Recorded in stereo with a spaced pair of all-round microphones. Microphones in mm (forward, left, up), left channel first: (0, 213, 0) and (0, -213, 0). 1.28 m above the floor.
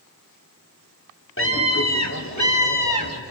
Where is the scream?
30° left (ahead or behind), 2.5 m; by 3.2 s 50° left (ahead or behind), 3.5 m.